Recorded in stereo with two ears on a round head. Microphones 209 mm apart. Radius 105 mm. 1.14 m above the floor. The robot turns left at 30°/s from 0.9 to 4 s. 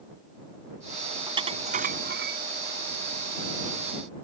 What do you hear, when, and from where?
1.3 s dishes clattering: 20° right (ahead or behind); by 2.4 s 50° right (ahead or behind)